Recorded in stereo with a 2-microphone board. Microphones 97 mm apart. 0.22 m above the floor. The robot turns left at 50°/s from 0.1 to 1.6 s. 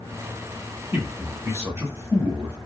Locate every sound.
0.9 s a man speaking: 25° right (ahead or behind), 1.0 m; by 2.6 s 30° right (ahead or behind), 1.0 m